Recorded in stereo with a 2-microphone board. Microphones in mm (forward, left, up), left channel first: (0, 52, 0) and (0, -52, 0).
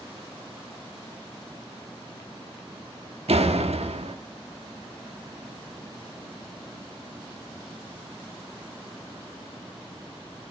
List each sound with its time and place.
3.3 s a door slam: 80° right, 1.3 m